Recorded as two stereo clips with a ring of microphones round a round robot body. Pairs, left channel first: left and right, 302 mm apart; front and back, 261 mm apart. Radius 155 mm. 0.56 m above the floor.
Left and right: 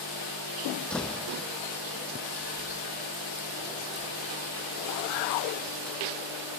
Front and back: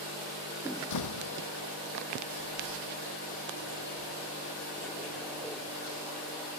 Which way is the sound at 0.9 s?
Straight ahead.